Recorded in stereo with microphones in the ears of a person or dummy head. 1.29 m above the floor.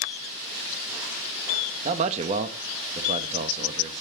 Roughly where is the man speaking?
Right.